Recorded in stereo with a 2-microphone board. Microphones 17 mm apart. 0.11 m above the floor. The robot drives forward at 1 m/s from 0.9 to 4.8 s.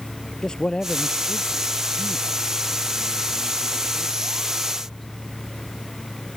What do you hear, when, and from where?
0.4 s a man speaking: 45° left (ahead or behind); by 5.0 s 20° left (ahead or behind)